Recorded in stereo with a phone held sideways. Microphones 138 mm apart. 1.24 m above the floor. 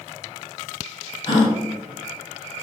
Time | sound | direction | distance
1.3 | a gasp | 40° left (ahead or behind) | 4 m